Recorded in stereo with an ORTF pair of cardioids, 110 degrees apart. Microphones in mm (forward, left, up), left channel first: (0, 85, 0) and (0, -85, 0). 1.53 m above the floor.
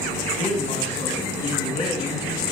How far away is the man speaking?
About 2 m.